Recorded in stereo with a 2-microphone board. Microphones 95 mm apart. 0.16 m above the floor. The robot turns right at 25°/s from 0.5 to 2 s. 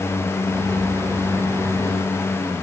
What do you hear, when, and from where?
Only background noise.